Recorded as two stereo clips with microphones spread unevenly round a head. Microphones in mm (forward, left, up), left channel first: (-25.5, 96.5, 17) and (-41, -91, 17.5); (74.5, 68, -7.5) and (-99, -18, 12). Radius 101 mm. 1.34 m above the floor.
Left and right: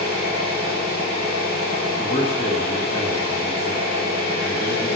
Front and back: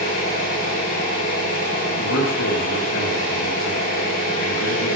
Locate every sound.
0.0 s an engine running: 45° left, 8.5 m
2.0 s a man speaking: 25° left, 2 m